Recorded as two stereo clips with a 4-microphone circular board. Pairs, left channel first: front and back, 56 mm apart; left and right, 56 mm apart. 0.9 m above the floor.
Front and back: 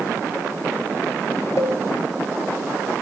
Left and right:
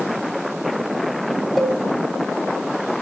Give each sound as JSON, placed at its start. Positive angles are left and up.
{"t": 1.6, "sound": "a cowbell", "azimuth_deg": 0, "distance_m": 0.9}